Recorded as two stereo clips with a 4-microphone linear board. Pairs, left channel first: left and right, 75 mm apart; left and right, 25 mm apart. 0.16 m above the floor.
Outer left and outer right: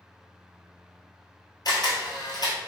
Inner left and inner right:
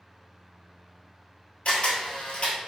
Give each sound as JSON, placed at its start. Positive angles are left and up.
{"t": 1.6, "sound": "a camera shutter", "side_deg": 60, "distance_m": 1.3}